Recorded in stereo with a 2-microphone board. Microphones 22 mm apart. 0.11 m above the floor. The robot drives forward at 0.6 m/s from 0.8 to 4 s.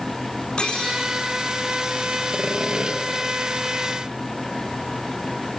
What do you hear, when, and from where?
0.6 s cutlery clinking: 50° left (ahead or behind), 4.5 m; by 1.0 s 55° left (ahead or behind), 4.5 m
2.3 s sawing: 45° right (ahead or behind), 1.9 m; by 3.0 s 40° right (ahead or behind), 2 m